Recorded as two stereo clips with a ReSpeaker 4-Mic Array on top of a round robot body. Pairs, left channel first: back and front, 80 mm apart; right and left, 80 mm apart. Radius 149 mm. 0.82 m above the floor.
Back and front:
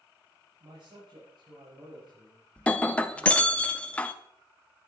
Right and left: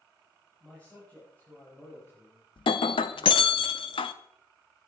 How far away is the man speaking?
About 6 m.